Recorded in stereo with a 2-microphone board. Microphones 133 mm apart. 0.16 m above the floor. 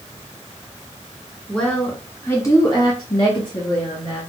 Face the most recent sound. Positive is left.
turn(degrees=35)  # may be behind; listen again after turning